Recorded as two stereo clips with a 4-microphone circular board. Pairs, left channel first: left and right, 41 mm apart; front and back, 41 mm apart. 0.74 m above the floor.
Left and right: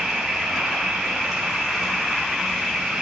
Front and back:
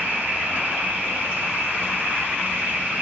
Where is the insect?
155° right, 2 m.